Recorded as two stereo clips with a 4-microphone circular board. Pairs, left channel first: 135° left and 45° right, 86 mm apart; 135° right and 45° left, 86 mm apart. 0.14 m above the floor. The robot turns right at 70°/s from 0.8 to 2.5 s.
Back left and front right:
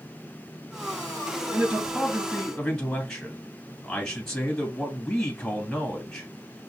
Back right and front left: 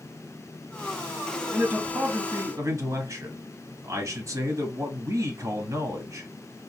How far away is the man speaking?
About 1.3 m.